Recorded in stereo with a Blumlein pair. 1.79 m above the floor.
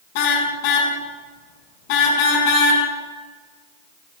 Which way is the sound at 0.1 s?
45° left.